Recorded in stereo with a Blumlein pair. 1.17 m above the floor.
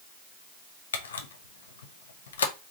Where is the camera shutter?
65° left, 0.7 m.